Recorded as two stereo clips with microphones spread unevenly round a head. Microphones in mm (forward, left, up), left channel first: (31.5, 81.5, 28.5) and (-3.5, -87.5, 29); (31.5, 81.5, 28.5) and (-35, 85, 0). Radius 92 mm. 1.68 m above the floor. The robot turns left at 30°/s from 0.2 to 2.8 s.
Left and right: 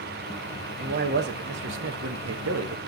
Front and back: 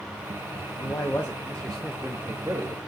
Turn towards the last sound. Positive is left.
turn(degrees=-120)